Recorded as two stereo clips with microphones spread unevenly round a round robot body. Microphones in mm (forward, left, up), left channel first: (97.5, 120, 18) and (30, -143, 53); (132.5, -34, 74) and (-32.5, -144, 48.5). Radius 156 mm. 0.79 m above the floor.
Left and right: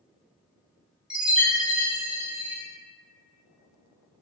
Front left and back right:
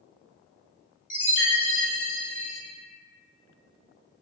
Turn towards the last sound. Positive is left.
turn(degrees=-10)